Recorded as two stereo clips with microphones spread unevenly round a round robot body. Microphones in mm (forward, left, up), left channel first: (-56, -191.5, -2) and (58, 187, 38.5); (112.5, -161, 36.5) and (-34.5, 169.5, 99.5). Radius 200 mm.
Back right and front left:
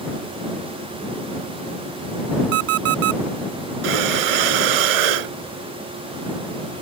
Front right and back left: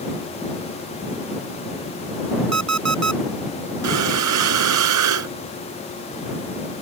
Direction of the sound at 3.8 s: 70° left.